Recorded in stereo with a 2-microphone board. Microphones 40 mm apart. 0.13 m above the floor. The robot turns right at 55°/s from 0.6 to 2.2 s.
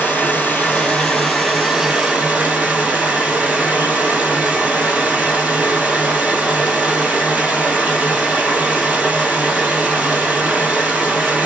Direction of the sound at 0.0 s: 130° left.